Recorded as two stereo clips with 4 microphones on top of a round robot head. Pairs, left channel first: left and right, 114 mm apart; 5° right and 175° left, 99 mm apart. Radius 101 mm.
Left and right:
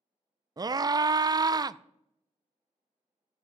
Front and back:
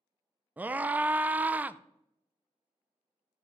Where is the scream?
120° right, 0.5 m.